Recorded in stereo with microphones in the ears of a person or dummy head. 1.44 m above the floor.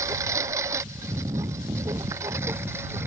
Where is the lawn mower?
10° right (ahead or behind).